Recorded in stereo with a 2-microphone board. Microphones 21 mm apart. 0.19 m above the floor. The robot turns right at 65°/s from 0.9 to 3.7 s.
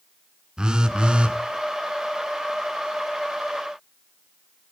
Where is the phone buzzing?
130° right, 1.4 m; by 1.4 s 100° right, 1.4 m.